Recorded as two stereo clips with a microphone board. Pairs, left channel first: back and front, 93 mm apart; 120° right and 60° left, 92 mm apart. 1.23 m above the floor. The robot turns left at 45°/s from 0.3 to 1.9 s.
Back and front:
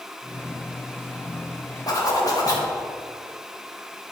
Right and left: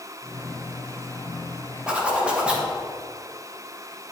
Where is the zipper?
140° left, 1.5 m; by 2.7 s 135° left, 1.5 m.